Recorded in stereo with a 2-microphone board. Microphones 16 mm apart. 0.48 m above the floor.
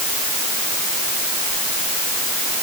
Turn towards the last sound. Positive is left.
No sound to turn to.